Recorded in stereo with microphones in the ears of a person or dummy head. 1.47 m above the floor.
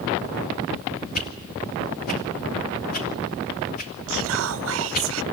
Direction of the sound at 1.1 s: 45° left (ahead or behind).